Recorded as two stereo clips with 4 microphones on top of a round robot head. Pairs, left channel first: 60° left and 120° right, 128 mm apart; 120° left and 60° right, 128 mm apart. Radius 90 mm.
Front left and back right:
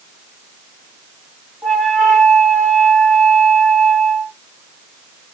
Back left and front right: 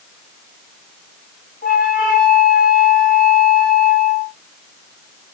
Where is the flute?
145° left, 1.2 m.